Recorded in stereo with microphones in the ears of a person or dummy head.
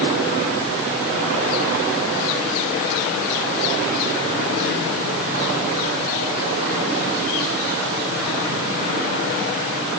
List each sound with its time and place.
Only background noise.